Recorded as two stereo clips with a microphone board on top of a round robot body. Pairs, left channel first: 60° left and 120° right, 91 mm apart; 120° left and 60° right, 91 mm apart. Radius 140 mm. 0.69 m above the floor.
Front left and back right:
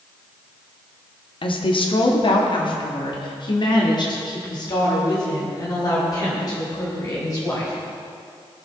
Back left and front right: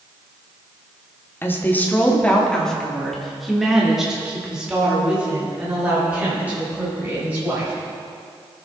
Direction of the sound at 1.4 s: 55° left.